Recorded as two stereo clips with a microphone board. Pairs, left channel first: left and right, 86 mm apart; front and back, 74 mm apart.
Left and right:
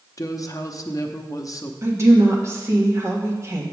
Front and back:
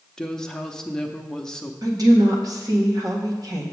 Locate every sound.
0.2 s a woman speaking: 80° left, 0.6 m
1.8 s a woman speaking: 145° right, 1.5 m